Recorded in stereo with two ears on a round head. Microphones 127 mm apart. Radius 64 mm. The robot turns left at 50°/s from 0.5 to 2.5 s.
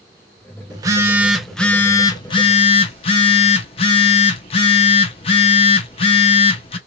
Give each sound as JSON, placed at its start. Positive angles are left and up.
{"t": 0.7, "sound": "a phone buzzing", "azimuth_deg": -145, "distance_m": 0.8}